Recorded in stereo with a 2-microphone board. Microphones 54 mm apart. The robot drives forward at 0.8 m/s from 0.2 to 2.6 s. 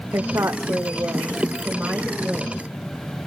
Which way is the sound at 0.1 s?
65° right (ahead or behind).